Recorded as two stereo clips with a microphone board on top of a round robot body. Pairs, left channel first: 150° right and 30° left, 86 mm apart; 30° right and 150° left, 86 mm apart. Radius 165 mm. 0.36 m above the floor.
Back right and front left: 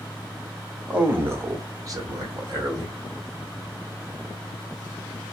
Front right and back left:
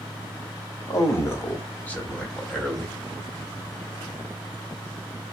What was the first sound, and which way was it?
A man speaking, 35° right.